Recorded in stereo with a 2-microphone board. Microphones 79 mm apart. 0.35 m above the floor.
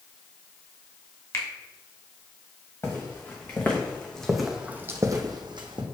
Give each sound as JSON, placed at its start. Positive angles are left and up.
{"t": 1.3, "sound": "a finger snap", "side_deg": 35, "distance_m": 0.9}
{"t": 2.8, "sound": "footsteps", "side_deg": 30, "distance_m": 2.0}